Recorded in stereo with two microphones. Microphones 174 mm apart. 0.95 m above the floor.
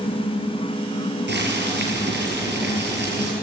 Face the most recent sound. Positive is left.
turn(degrees=-85)